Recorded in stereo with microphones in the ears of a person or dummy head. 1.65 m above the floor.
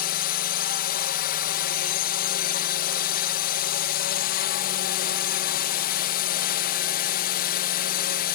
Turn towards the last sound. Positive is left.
turn(degrees=50)  # may be behind; listen again after turning